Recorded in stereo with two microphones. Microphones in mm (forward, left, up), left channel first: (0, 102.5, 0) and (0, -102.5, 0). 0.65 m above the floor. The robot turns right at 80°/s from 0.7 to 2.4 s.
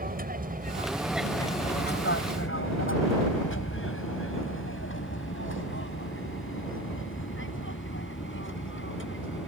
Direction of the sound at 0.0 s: 40° right (ahead or behind).